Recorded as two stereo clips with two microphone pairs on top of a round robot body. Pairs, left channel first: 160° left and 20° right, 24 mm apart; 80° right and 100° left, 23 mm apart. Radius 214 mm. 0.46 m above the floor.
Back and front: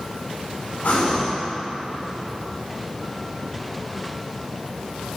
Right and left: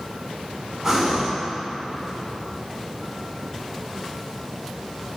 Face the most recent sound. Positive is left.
turn(degrees=175)